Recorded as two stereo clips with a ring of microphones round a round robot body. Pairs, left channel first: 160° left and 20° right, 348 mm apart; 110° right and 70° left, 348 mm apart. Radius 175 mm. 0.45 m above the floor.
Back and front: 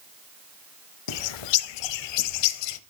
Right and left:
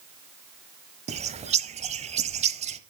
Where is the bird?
140° left, 1.0 m.